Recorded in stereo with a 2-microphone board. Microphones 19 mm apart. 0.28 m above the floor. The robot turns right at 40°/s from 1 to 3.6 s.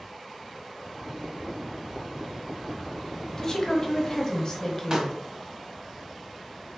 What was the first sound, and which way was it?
A woman speaking, 35° left (ahead or behind).